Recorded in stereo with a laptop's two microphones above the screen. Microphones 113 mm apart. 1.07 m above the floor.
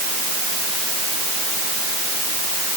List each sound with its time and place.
Only background noise.